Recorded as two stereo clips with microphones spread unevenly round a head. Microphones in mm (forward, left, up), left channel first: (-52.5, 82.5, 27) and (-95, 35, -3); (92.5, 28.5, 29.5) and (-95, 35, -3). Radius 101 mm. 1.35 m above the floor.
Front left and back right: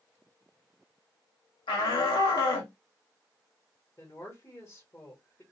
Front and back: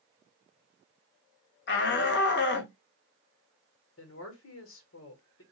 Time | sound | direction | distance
1.7 | a shout | 30° left | 0.9 m
4.0 | a woman speaking | 30° right | 1.2 m